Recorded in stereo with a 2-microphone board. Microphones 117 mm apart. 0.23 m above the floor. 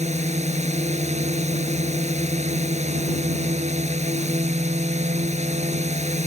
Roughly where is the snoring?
I don't hear snoring.